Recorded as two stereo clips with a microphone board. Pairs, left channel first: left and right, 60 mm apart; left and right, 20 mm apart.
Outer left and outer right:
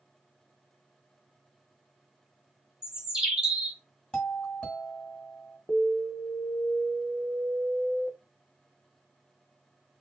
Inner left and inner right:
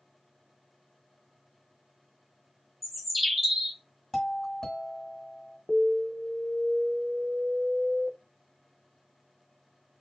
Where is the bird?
15° right (ahead or behind), 1.1 m.